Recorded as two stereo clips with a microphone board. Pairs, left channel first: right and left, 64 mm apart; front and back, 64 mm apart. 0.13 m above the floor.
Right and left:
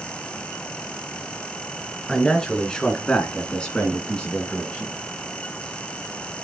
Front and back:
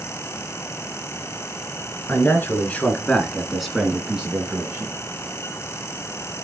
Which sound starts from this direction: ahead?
A man speaking, at 2.1 s.